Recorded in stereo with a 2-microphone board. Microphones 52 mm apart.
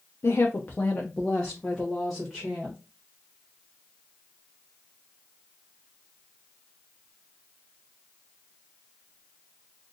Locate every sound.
0.2 s a woman speaking: 60° left (ahead or behind), 0.5 m; by 2.8 s 5° right (ahead or behind), 1.5 m